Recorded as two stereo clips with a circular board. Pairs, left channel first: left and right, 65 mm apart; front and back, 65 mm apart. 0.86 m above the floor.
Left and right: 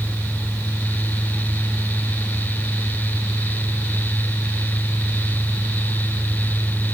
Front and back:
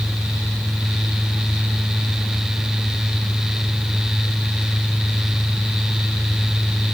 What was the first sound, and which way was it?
Only background noise.